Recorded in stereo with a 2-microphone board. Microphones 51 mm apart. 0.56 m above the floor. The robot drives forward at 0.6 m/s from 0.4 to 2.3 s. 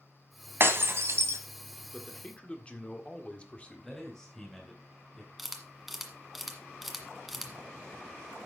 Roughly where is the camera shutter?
Centre.